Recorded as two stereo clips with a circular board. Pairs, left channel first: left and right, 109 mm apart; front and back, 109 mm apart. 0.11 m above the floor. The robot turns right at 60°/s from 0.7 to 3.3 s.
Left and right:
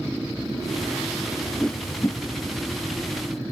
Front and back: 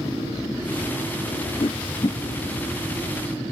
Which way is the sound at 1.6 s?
5° left.